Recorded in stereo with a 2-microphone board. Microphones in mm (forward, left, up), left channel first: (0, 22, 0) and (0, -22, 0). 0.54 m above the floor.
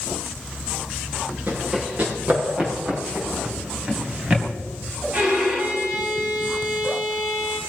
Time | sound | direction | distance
1.5 | running footsteps | 30° right (ahead or behind) | 6 m
3.5 | a drawer | 20° right (ahead or behind) | 2.5 m
5.1 | a violin | 25° right (ahead or behind) | 4 m